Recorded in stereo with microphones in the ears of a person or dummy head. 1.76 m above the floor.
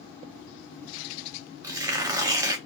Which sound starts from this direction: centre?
Tearing paper, at 1.6 s.